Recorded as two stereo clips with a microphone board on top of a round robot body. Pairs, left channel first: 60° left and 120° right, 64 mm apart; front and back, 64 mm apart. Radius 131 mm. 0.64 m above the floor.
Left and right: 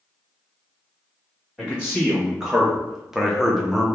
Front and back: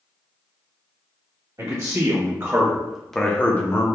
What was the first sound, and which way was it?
A man speaking, 155° left.